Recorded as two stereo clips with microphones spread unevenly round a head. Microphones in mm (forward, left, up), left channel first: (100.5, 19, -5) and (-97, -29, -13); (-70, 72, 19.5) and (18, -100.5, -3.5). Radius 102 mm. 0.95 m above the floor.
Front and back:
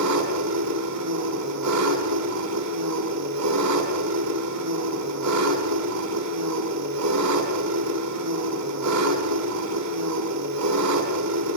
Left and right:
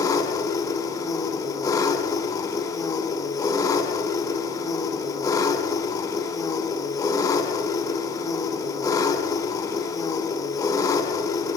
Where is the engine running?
170° right, 6.5 m.